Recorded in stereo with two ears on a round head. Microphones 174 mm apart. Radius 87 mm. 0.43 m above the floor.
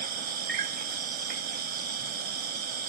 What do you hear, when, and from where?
0.0 s an insect: 50° right (ahead or behind)